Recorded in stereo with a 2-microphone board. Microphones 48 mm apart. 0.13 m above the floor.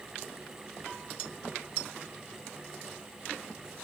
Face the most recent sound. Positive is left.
No sound to turn to.